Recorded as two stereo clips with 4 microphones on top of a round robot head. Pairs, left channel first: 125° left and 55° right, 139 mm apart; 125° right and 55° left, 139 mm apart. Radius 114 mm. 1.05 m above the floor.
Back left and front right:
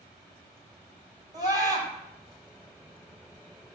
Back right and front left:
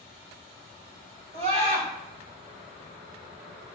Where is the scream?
10° left, 5 m.